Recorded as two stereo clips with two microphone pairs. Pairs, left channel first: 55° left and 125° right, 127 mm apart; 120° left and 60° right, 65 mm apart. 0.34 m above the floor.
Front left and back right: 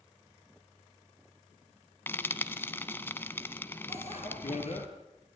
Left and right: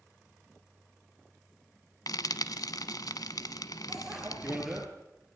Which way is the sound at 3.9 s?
25° left.